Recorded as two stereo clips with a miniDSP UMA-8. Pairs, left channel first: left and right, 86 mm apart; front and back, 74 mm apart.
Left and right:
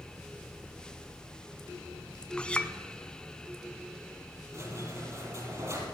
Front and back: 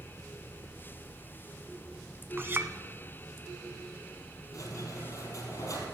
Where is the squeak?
40° right, 3.5 m.